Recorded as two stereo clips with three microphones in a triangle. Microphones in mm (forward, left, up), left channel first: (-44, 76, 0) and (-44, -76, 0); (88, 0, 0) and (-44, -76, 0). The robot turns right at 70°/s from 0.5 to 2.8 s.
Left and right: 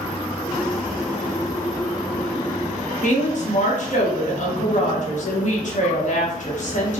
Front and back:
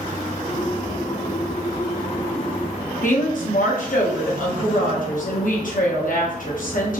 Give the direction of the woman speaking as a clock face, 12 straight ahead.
10 o'clock.